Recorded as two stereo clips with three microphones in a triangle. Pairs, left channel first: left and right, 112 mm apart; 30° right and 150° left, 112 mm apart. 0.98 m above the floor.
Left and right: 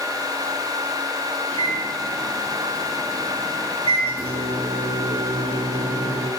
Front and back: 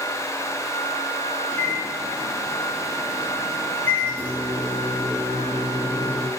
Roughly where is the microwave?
Right.